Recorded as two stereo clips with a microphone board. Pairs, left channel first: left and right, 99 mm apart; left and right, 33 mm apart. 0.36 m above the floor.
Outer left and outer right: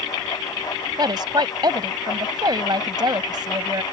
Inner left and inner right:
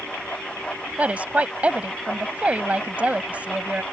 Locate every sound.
1.0 s a woman speaking: 45° right (ahead or behind)